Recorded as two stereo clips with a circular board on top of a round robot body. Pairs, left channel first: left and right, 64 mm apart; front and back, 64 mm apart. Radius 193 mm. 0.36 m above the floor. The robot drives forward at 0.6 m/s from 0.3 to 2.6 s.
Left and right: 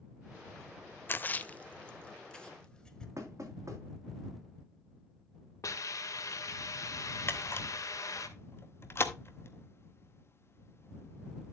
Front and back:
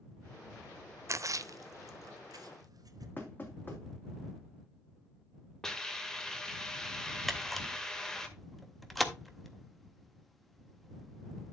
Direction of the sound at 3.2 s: 60° right.